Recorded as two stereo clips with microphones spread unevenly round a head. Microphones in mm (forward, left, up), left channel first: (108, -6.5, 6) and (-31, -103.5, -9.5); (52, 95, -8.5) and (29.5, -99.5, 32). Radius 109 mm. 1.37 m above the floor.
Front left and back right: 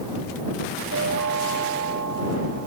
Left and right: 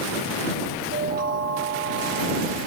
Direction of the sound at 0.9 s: 150° right.